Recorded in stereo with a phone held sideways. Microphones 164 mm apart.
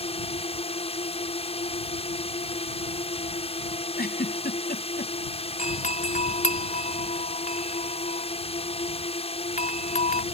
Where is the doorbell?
50° left (ahead or behind).